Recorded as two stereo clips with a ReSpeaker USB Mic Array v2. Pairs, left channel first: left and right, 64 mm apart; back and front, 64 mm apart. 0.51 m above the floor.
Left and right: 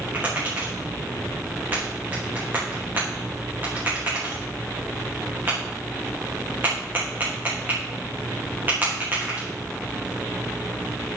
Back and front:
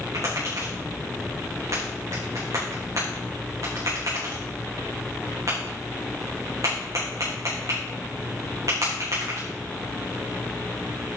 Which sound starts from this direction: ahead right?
Tapping, at 0.1 s.